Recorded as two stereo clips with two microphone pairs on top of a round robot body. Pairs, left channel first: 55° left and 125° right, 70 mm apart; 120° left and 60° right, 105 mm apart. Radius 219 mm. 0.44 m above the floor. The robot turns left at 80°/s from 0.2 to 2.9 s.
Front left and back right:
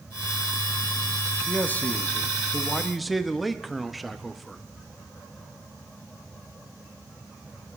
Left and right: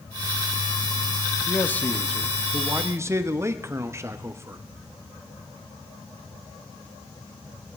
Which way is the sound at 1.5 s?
85° left.